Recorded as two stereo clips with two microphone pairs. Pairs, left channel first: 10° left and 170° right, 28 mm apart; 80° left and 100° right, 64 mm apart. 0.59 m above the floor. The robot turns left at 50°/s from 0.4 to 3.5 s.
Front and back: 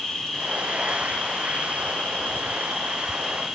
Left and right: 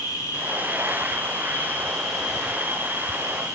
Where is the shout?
I don't hear a shout.